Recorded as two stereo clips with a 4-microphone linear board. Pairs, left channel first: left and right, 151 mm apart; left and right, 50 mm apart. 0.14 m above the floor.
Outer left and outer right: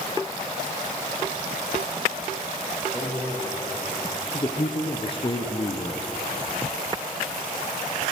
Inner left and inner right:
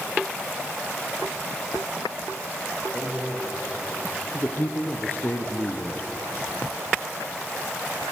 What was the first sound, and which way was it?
A man speaking, 20° left (ahead or behind).